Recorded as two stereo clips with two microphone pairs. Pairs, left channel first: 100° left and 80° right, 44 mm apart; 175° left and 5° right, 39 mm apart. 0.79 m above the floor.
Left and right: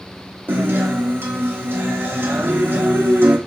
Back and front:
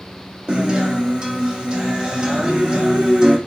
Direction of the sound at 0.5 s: 65° right.